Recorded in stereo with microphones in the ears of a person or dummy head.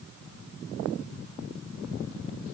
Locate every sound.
Only background noise.